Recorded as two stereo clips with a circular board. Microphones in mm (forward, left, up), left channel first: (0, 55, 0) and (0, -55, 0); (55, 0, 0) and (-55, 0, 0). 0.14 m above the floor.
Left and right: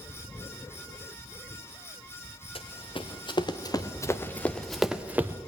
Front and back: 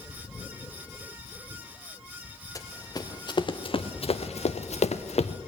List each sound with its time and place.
2.5 s running footsteps: 55° left, 1.5 m; by 5.3 s 20° right, 0.9 m